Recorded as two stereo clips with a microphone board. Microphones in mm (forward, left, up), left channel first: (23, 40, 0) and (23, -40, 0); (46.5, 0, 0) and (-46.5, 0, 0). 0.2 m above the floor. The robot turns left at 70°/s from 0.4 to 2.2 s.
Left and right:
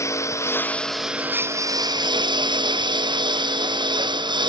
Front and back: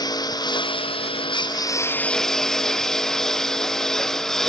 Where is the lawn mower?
40° left; by 4.5 s 85° right.